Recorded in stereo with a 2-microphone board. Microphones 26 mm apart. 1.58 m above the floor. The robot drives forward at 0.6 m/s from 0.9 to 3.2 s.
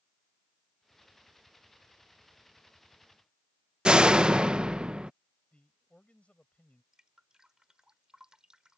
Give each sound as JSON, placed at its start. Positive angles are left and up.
{"t": 3.9, "sound": "a door slam", "side_deg": -35}
{"t": 5.5, "sound": "a man speaking", "side_deg": 50}
{"t": 6.9, "sound": "dripping", "side_deg": -25}